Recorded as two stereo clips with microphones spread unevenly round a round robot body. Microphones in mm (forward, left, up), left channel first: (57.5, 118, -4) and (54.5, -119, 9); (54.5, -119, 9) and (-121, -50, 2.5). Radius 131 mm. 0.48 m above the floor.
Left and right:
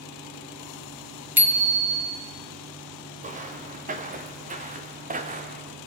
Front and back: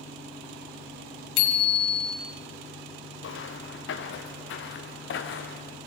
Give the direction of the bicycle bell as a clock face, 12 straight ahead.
12 o'clock.